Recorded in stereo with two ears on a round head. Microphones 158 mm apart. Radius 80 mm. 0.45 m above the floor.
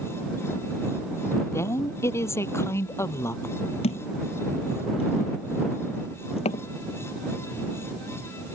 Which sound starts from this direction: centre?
A woman speaking, at 1.5 s.